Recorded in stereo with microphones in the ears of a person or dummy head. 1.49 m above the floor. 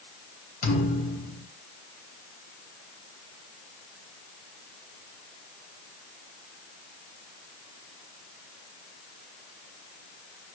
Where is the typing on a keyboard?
I don't hear typing on a keyboard.